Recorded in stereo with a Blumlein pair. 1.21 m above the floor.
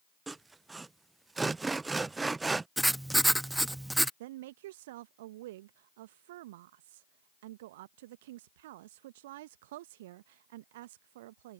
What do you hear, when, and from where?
0.3 s sawing: 10° right
2.8 s writing: 5° right
4.2 s a woman speaking: 55° right